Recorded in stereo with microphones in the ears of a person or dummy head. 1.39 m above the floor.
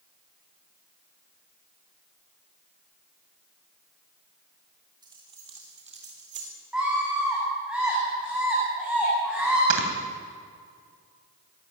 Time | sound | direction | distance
5.0 | keys jangling | 25° right (ahead or behind) | 3 m
6.7 | a scream | 5° right (ahead or behind) | 9.5 m
9.7 | snoring | 70° right (ahead or behind) | 3 m